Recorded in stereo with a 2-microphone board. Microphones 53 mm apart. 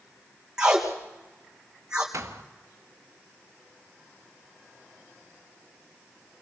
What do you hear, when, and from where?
0.6 s tape being pulled: 10° right (ahead or behind), 3 m
2.1 s a thud: 65° right (ahead or behind), 1.6 m